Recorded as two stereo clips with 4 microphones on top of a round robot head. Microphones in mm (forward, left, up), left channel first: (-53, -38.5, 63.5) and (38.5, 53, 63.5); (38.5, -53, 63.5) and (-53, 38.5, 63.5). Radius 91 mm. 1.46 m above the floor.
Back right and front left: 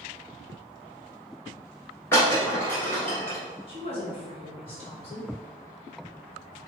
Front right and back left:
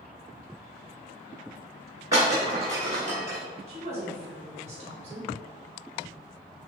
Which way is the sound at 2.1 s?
175° left.